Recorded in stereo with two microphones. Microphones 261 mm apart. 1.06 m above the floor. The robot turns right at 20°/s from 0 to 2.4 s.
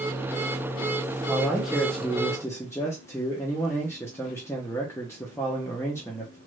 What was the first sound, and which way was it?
A man speaking, 5° right (ahead or behind).